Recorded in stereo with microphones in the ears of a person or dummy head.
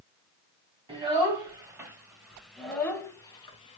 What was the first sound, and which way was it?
A child speaking, 20° right (ahead or behind).